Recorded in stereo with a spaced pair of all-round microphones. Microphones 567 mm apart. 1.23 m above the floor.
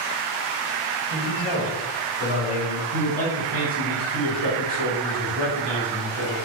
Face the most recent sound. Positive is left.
turn(degrees=-45)  # may be behind; listen again after turning